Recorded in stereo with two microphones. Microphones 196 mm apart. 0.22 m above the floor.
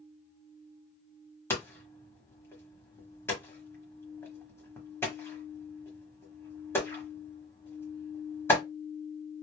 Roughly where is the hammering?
Centre.